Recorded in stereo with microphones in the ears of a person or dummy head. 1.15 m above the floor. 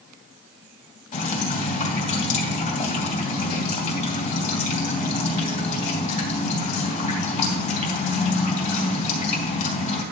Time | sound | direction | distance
1.1 | dripping | 30° left (ahead or behind) | 2.5 m